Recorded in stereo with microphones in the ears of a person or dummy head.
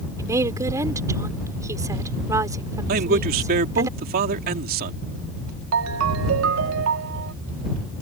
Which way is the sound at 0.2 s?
20° right (ahead or behind).